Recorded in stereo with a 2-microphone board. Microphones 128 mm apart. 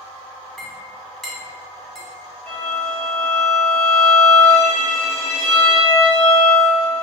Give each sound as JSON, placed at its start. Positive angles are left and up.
{"t": 0.6, "sound": "a clink", "side_deg": 0, "distance_m": 0.8}
{"t": 2.5, "sound": "a violin", "side_deg": 20, "distance_m": 1.6}